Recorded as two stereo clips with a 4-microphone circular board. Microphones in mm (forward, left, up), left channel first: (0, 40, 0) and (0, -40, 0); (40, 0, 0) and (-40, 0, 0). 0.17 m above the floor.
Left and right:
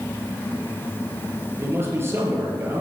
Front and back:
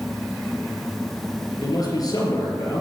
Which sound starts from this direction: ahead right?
A man speaking, at 1.6 s.